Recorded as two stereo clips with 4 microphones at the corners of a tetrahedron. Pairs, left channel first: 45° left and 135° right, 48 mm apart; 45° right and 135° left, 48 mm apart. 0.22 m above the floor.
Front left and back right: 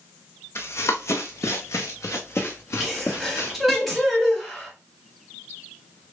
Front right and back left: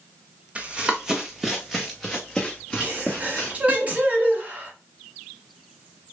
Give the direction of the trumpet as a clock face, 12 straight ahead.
No trumpet in this recording.